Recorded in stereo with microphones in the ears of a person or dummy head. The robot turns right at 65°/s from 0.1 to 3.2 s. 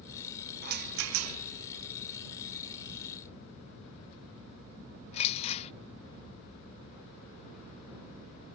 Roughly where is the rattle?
Right.